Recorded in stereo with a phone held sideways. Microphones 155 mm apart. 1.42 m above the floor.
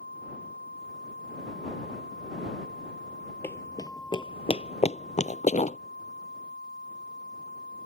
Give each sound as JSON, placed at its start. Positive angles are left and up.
{"t": 3.4, "sound": "running footsteps", "side_deg": 15}